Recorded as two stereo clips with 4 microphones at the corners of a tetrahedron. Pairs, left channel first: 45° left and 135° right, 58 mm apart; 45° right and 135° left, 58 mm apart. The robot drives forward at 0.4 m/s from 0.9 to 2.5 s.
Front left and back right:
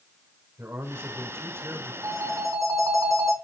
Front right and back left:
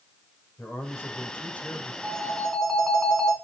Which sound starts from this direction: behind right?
A phone ringing, at 2.0 s.